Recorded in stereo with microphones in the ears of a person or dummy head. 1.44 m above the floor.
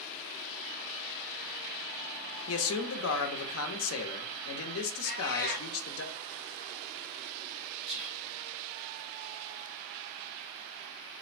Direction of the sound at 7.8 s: 35° right (ahead or behind).